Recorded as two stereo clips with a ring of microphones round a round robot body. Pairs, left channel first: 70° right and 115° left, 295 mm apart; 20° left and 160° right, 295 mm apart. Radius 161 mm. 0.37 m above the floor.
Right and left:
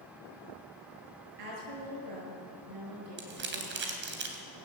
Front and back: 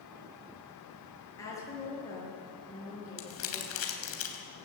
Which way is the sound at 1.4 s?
100° left.